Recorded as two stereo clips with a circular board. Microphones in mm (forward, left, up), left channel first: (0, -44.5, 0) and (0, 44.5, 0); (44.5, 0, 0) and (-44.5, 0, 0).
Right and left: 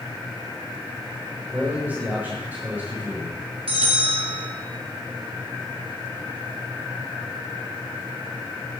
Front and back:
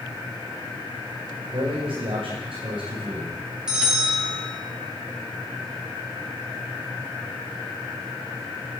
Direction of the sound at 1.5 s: 160° left.